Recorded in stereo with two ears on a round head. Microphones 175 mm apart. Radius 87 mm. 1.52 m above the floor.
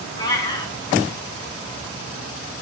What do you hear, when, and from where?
0.2 s a cat meowing: 20° left (ahead or behind), 3 m